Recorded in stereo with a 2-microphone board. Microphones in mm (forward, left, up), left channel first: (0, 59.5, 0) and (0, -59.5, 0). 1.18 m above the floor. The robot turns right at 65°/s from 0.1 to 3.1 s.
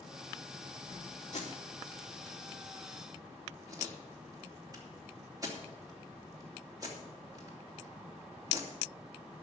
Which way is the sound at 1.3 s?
80° left.